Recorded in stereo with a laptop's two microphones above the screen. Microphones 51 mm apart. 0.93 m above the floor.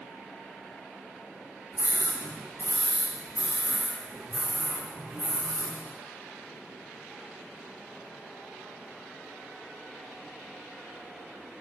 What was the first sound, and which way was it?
A scream, 40° right (ahead or behind).